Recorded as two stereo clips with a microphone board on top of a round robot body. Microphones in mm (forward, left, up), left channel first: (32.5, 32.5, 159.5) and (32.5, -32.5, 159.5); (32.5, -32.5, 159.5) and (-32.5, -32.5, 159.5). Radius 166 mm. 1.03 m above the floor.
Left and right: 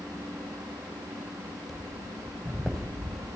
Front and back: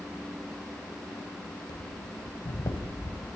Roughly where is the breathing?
Ahead.